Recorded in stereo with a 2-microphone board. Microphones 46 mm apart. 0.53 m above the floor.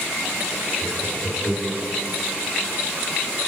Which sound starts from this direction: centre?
Laughter, at 0.8 s.